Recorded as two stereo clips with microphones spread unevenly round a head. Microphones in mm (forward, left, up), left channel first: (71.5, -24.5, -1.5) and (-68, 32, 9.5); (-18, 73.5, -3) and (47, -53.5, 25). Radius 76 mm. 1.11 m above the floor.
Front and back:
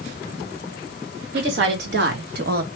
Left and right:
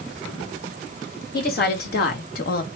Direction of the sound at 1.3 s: 140° left.